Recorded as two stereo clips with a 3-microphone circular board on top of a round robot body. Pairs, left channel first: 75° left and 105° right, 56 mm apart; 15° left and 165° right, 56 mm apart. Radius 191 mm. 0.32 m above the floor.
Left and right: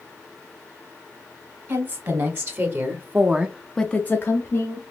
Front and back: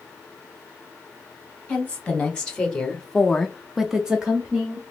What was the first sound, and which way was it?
A woman speaking, 60° right.